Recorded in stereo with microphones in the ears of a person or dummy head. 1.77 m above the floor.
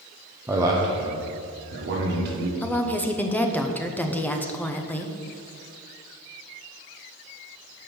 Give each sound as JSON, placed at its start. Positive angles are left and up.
{"t": 0.5, "sound": "a man speaking", "side_deg": -10, "distance_m": 0.8}
{"t": 2.6, "sound": "a woman speaking", "side_deg": 10, "distance_m": 0.7}